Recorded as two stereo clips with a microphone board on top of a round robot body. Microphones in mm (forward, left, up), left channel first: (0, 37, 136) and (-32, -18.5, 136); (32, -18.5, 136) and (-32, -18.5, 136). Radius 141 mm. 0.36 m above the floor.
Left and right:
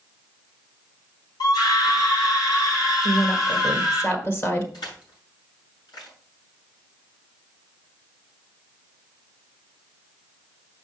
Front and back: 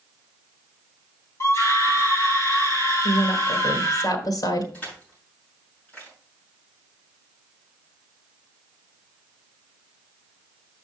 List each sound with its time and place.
1.4 s a scream: 50° left, 5 m
3.0 s a woman speaking: 10° left, 2 m
4.7 s crushing: 70° left, 6.5 m